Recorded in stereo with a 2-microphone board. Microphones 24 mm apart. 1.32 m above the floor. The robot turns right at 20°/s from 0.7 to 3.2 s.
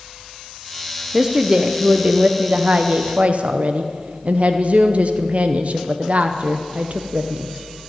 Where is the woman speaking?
165° right, 0.7 m; by 7.5 s 120° right, 0.7 m.